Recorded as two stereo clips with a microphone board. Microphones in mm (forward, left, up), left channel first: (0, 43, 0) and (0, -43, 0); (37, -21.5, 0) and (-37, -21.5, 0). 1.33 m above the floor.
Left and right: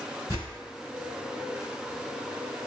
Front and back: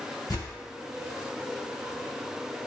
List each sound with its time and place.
0.3 s tearing paper: 40° left, 1.5 m